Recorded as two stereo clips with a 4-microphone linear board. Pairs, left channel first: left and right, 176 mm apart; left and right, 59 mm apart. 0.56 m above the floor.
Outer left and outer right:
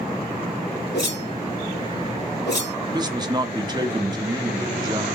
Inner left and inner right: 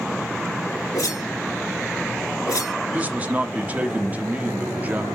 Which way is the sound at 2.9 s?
25° right (ahead or behind).